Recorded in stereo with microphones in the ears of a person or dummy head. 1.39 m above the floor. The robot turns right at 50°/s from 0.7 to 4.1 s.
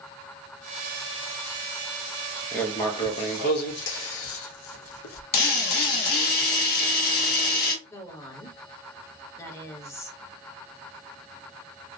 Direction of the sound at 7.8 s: 20° left (ahead or behind).